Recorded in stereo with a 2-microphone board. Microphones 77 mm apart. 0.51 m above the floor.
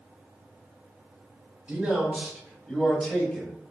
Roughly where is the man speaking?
Centre.